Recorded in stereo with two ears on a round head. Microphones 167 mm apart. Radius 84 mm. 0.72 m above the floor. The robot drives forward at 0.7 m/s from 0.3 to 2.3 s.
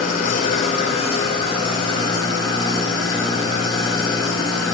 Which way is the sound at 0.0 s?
50° left (ahead or behind).